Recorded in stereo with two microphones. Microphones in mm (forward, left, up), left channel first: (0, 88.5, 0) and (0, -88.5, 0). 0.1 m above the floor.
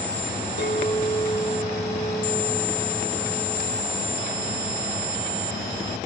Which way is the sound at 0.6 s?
70° left (ahead or behind).